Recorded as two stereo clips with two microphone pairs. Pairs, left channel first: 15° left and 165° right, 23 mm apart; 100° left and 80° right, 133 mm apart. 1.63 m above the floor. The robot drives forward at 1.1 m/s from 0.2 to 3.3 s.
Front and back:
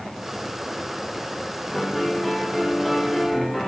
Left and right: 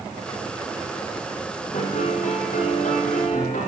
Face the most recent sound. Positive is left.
turn(degrees=100)